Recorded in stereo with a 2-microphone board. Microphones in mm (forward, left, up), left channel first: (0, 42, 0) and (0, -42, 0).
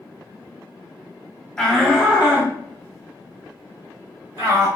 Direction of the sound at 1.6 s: 5° left (ahead or behind).